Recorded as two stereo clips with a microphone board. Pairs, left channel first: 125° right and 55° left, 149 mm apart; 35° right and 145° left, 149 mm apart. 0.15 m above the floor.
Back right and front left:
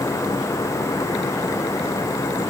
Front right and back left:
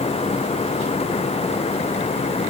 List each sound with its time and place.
Only background noise.